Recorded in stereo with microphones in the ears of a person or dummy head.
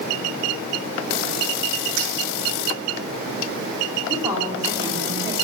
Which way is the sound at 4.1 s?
25° right (ahead or behind).